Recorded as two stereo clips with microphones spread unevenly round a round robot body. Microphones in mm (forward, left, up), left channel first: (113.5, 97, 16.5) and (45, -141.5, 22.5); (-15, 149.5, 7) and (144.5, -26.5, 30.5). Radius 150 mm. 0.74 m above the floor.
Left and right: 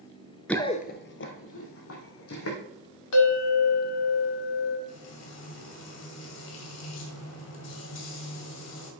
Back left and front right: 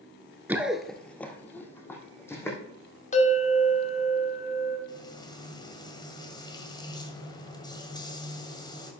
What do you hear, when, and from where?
0.5 s running footsteps: 10° right, 0.7 m; by 2.6 s 50° left, 3 m
3.1 s a bell: 75° left, 1.9 m
4.9 s frying: 60° left, 1.8 m